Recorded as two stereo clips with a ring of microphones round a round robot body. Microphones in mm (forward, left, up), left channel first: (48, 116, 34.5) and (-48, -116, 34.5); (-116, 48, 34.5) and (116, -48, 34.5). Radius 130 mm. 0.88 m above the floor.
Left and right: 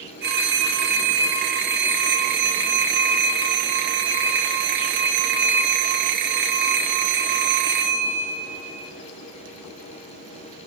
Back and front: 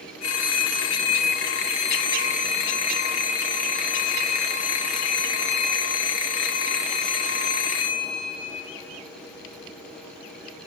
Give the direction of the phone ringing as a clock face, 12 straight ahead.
6 o'clock.